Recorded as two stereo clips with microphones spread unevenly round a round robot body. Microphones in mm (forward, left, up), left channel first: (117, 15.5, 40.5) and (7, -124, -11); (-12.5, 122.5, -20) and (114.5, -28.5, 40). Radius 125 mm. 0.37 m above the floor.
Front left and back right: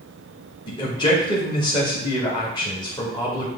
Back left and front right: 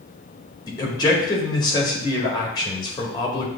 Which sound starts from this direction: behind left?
A man speaking, at 0.7 s.